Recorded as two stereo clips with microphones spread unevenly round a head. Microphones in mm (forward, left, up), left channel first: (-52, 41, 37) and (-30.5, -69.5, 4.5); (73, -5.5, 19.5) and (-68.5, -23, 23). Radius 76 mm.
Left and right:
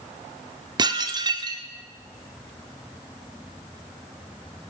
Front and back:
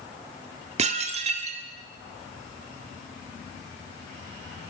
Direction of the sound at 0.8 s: 130° right.